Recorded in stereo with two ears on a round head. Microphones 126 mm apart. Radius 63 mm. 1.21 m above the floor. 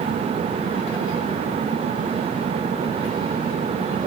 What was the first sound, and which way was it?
Only background noise.